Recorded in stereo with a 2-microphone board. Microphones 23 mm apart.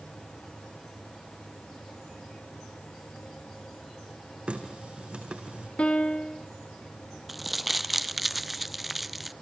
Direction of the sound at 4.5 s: 50° right (ahead or behind).